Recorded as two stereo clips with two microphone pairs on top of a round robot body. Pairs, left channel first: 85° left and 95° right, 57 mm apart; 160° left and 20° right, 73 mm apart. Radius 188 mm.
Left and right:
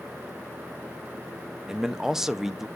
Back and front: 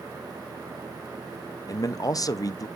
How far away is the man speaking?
About 1.0 m.